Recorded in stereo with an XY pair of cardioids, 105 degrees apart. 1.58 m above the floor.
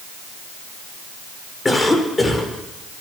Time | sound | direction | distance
1.6 | a cough | 20° left | 6 m